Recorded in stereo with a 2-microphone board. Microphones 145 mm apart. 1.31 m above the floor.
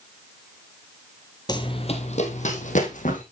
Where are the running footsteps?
30° left (ahead or behind), 1.5 m; by 3.2 s 60° left (ahead or behind), 3 m.